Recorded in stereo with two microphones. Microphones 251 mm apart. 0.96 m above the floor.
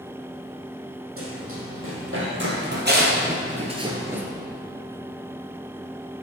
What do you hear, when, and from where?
1.2 s running footsteps: 60° right (ahead or behind), 2.5 m; by 4.2 s 5° right (ahead or behind), 0.9 m